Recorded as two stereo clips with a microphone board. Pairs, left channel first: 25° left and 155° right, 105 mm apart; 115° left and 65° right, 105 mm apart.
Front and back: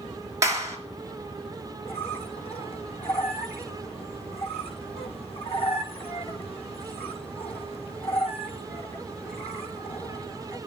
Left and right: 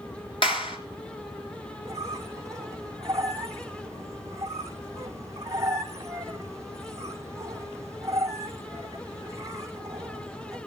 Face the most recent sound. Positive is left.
turn(degrees=-5)